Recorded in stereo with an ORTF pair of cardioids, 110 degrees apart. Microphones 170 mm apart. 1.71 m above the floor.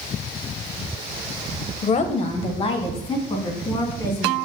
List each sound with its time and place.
1.8 s a woman speaking: 45° left, 1.2 m; by 4.4 s 25° left, 3.5 m